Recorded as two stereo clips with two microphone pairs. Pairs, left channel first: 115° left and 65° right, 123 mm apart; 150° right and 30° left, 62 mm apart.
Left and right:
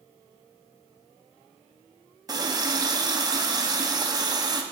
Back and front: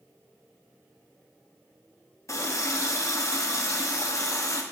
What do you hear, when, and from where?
2.3 s a running tap: 125° right, 0.6 m